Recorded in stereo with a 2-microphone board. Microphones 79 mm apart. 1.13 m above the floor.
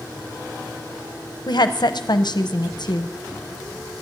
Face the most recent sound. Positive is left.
turn(degrees=65)  # may be behind; listen again after turning